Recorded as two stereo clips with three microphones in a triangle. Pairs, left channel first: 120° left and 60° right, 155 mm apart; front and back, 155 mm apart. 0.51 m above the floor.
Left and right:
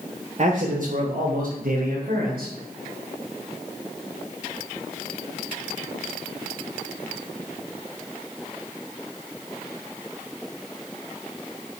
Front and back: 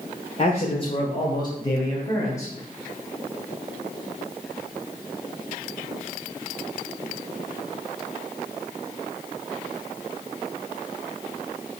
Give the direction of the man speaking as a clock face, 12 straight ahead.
1 o'clock.